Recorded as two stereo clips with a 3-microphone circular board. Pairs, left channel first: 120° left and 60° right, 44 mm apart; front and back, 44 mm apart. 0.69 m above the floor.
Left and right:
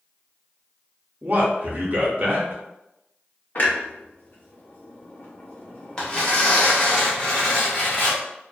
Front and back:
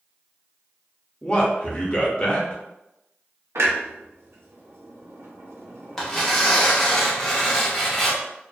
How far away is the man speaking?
About 0.7 m.